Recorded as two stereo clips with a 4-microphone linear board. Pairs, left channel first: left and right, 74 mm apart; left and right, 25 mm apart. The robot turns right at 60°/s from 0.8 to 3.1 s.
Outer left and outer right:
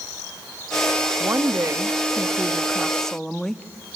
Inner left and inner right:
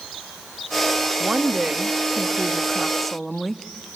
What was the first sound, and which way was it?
A woman speaking, 105° right.